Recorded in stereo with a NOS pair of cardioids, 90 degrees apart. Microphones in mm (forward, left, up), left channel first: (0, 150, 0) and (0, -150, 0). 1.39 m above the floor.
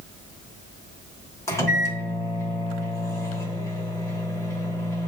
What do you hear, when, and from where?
1.5 s a microwave: 10° left, 0.9 m